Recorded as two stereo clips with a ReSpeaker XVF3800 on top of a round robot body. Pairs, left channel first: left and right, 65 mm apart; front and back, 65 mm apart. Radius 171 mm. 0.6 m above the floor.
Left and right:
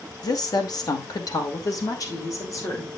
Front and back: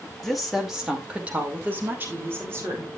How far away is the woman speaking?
About 2.5 m.